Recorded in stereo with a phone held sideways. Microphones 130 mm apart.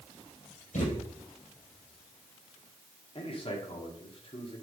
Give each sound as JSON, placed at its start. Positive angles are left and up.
{"t": 0.7, "sound": "a thud", "side_deg": 65, "distance_m": 5.0}
{"t": 3.1, "sound": "a man speaking", "side_deg": 45, "distance_m": 2.0}